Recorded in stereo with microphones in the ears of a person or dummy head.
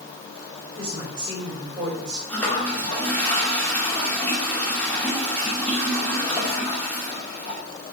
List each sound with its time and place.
0.8 s a woman speaking: 25° right (ahead or behind), 4.5 m
2.3 s a toilet flushing: 15° left (ahead or behind), 2 m